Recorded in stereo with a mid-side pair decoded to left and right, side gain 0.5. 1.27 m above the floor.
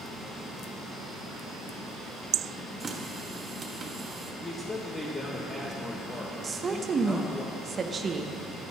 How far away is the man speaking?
About 1.6 m.